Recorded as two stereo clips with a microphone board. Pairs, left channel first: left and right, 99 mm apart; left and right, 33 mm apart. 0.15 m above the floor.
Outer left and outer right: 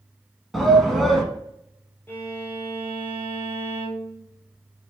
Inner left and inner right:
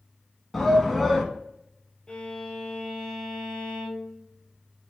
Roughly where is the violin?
Left.